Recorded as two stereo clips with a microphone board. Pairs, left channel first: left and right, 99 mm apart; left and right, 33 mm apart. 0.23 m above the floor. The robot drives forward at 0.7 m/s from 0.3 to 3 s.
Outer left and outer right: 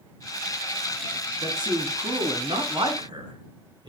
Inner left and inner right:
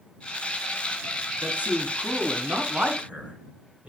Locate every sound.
1.4 s a man speaking: 50° right (ahead or behind), 2.5 m; by 3.9 s 55° right (ahead or behind), 2.5 m